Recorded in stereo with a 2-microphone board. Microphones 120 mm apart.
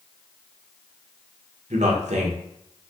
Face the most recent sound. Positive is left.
turn(degrees=-75)  # may be behind; listen again after turning